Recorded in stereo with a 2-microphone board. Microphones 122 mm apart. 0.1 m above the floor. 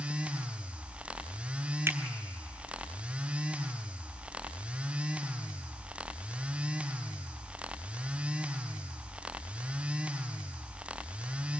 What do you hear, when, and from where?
1.9 s a finger snap: 20° right (ahead or behind), 1.1 m